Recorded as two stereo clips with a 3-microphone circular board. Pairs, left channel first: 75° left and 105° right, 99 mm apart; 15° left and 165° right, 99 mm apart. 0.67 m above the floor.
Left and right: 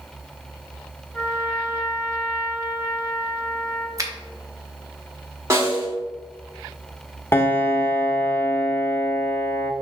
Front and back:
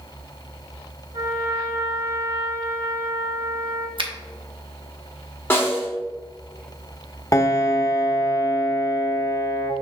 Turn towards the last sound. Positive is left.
turn(degrees=30)